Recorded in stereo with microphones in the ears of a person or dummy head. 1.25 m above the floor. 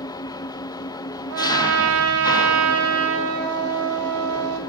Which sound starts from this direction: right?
A trumpet, at 1.3 s.